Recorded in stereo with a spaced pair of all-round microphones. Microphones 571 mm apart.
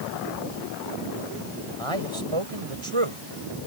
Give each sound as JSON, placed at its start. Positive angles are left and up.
{"t": 1.8, "sound": "a man speaking", "side_deg": -55}